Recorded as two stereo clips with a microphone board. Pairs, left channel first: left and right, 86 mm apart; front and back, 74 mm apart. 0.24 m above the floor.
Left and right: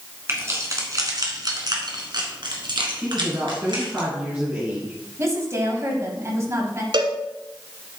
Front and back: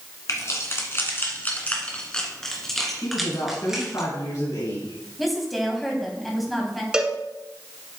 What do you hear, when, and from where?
0.3 s keys jangling: 35° right, 1.9 m; by 4.0 s 100° right, 3 m
3.0 s a woman speaking: 30° right, 2.5 m
5.2 s a woman speaking: 90° right, 1.8 m
6.9 s a cowbell: 100° right, 1.0 m